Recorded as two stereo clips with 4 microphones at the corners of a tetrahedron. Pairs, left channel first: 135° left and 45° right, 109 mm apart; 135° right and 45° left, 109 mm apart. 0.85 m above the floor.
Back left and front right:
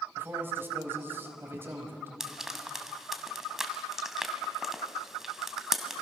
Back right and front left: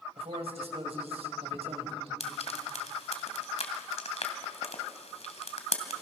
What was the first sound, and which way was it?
A man speaking, 25° left.